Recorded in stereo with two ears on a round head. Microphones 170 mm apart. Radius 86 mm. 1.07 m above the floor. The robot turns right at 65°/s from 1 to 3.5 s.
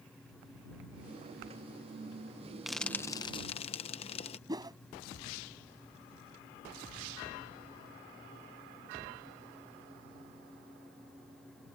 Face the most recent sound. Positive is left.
turn(degrees=-20)  # may be behind; listen again after turning